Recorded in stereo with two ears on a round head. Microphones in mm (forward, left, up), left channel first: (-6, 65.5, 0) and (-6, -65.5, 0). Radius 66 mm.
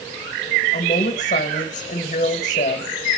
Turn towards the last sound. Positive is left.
turn(degrees=45)  # may be behind; listen again after turning